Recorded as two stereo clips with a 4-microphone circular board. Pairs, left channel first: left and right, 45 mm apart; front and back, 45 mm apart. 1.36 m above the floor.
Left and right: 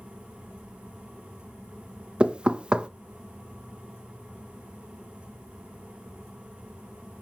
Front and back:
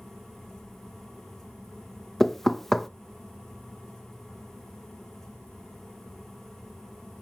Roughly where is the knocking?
Right.